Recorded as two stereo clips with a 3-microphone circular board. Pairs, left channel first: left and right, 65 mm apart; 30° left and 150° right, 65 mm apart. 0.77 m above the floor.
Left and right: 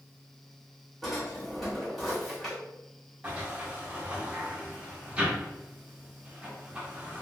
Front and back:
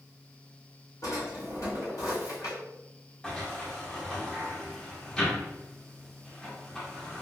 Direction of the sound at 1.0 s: Straight ahead.